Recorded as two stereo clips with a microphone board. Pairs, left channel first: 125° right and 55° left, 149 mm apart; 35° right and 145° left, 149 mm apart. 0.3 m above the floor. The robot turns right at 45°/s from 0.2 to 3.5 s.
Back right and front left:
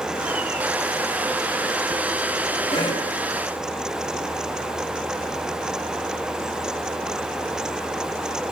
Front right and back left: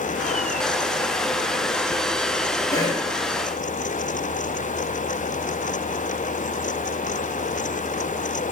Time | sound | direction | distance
2.7 | a cough | 95° right | 1.9 m